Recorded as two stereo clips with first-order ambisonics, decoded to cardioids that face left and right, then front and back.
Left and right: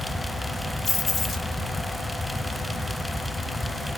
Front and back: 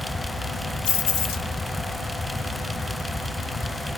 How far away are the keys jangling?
About 1.2 m.